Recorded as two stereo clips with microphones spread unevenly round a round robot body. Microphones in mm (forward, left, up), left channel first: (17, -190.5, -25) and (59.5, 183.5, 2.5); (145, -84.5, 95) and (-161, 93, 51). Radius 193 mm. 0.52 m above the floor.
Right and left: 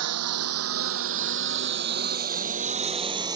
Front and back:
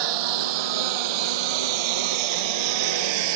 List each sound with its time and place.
0.0 s a lawn mower: 135° left; by 3.4 s 165° left